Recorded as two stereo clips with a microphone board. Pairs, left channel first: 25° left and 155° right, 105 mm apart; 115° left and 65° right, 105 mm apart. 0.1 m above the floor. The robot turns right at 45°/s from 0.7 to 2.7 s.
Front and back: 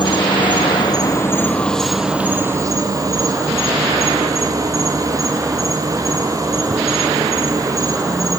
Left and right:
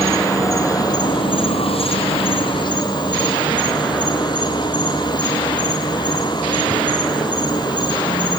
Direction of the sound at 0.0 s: 60° left.